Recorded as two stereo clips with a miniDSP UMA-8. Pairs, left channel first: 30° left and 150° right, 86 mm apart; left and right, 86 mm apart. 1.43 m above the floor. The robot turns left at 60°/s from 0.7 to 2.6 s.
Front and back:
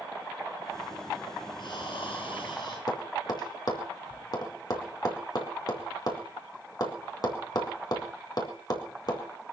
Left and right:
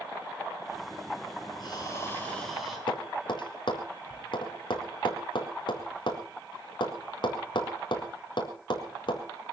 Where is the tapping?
65° left, 4.5 m.